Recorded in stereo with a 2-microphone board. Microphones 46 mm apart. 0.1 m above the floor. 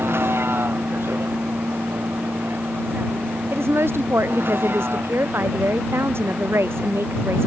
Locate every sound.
0.0 s a vehicle: 60° right (ahead or behind); by 7.5 s 50° right (ahead or behind)
3.5 s a woman speaking: 60° right (ahead or behind)